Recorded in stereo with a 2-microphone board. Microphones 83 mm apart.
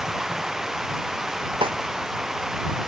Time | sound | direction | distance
0.0 | running water | 5° right (ahead or behind) | ?
1.6 | a snare drum | 85° right | ?